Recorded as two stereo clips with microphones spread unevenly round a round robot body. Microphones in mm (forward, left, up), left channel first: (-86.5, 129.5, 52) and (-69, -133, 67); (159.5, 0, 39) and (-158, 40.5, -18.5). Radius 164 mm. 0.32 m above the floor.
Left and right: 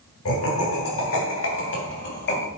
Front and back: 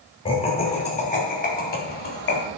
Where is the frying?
No frying in this recording.